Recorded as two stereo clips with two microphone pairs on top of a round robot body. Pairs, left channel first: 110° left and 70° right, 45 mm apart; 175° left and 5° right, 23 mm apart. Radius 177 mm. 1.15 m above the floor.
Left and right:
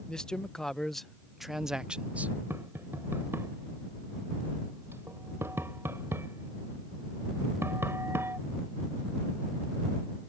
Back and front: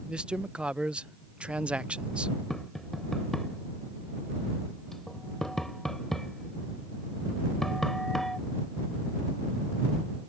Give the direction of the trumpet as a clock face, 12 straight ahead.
No trumpet in this recording.